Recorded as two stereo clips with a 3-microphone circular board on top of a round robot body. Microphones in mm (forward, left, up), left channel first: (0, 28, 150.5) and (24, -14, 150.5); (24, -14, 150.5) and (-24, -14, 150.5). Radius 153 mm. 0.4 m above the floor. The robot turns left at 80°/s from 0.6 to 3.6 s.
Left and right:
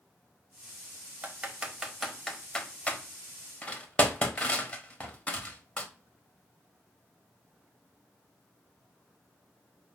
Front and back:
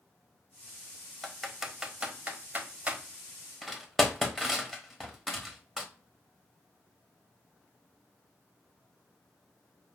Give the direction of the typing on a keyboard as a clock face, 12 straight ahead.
3 o'clock.